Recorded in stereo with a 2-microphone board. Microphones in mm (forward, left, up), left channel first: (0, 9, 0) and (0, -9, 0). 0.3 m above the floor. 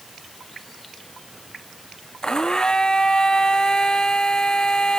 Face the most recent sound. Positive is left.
turn(degrees=50)  # may be behind; listen again after turning